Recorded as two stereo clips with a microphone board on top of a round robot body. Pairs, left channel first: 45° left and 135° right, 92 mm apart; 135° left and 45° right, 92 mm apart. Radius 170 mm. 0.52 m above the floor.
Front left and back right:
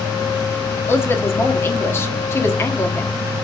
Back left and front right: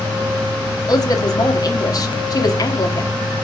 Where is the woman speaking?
100° left, 1.5 m.